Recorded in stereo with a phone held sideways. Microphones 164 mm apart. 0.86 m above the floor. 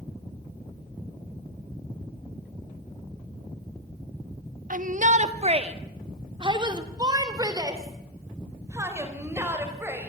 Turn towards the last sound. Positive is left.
turn(degrees=-15)  # may be behind; listen again after turning